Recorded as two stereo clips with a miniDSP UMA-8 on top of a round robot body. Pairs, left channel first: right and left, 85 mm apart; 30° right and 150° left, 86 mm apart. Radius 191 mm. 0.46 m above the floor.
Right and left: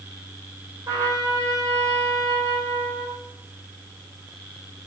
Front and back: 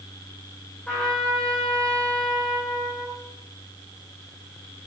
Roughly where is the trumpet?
Ahead left.